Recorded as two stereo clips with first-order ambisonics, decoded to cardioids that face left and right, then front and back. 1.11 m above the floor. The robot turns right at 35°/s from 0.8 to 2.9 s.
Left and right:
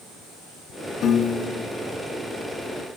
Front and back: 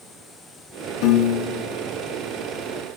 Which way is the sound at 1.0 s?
30° left.